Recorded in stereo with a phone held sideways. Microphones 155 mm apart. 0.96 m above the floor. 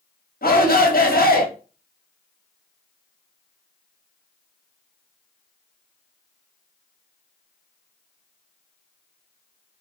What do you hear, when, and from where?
0.4 s a shout: 80° left, 1.3 m